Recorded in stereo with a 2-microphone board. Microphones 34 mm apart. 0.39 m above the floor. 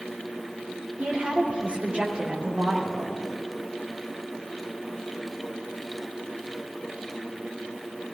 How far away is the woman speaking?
About 5 m.